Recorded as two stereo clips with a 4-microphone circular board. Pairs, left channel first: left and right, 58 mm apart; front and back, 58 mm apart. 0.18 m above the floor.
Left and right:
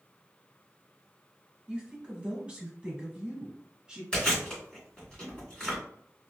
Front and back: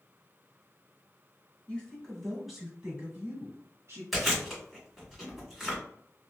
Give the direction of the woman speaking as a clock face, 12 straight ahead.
1 o'clock.